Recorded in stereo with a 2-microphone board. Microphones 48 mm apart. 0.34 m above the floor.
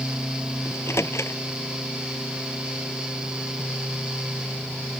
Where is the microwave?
70° left (ahead or behind).